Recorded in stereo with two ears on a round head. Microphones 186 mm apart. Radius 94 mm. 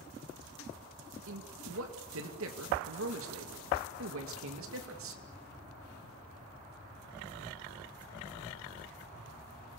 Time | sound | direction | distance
1.3 | a man speaking | 70° right (ahead or behind) | 2.5 m